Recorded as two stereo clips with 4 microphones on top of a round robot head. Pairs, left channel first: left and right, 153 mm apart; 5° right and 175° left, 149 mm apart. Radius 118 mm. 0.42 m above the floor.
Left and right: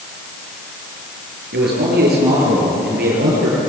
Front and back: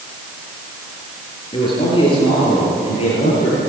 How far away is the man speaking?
About 8 m.